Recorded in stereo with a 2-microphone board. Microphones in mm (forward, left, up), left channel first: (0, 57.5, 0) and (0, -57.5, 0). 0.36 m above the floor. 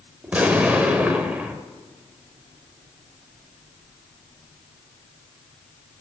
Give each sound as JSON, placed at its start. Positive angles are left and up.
{"t": 0.2, "sound": "an explosion", "side_deg": -15, "distance_m": 1.0}